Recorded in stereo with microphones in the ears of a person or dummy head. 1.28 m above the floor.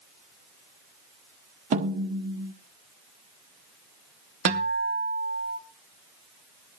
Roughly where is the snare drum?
Right.